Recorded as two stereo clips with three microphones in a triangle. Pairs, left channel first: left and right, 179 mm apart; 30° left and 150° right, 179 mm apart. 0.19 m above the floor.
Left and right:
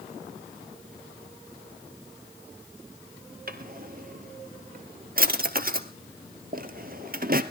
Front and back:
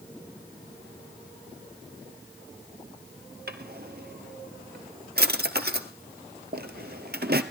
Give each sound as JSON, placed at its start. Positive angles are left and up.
{"t": 3.5, "sound": "a drawer", "azimuth_deg": -125, "distance_m": 1.4}